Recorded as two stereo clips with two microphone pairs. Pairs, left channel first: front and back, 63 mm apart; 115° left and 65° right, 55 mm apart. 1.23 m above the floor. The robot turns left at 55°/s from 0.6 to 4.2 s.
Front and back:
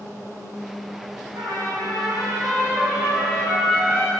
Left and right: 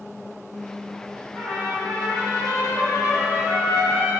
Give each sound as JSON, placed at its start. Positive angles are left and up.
{"t": 1.4, "sound": "a trumpet", "azimuth_deg": -165, "distance_m": 0.9}